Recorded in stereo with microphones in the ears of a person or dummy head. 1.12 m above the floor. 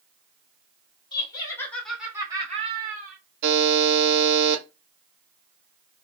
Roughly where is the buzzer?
Right.